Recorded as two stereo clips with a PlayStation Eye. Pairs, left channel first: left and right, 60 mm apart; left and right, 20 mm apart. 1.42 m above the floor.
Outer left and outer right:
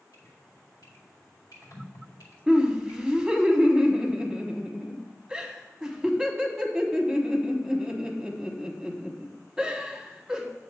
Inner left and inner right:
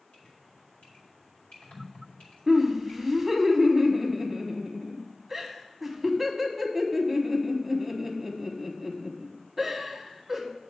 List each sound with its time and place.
0.1 s dripping: 80° left, 2.5 m
2.5 s laughter: 10° right (ahead or behind), 1.0 m